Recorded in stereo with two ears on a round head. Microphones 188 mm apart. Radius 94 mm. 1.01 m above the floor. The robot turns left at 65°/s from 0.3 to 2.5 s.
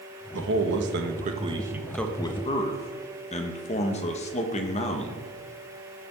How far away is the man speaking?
About 1.3 m.